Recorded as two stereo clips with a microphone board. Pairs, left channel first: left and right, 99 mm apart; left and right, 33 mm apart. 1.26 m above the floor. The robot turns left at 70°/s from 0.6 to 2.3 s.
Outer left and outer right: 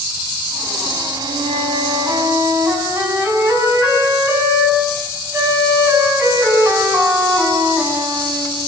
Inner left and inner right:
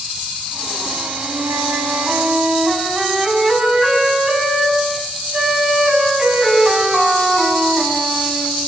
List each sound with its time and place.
1.2 s a flute: 70° right, 7 m; by 8.6 s 145° right, 7 m